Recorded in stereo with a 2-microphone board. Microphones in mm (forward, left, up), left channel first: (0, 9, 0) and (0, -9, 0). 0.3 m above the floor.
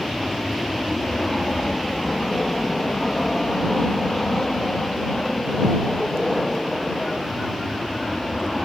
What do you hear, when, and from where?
0.0 s an aircraft: 25° left (ahead or behind); by 8.7 s 15° left (ahead or behind)